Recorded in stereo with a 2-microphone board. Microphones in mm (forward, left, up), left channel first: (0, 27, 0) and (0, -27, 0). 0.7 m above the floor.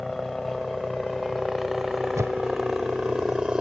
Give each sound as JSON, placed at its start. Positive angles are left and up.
{"t": 0.0, "sound": "a helicopter", "side_deg": 5}
{"t": 2.1, "sound": "a whoosh", "side_deg": -70}